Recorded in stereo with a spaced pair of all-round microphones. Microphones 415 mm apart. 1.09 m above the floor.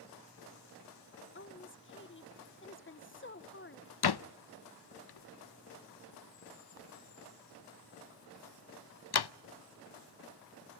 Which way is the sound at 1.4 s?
30° left (ahead or behind).